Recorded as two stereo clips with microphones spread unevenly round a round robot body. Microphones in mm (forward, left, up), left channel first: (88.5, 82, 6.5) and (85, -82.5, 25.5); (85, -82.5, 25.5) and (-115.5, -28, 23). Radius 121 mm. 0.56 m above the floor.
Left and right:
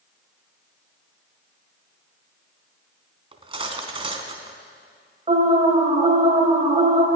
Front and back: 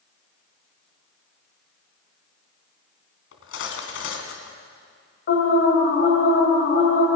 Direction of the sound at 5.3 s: 40° right.